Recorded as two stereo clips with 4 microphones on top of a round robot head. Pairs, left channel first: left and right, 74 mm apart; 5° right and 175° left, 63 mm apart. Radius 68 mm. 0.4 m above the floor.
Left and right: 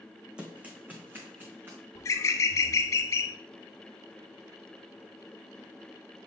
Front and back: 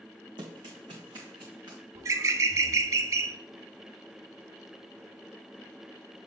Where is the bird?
140° left, 0.5 m.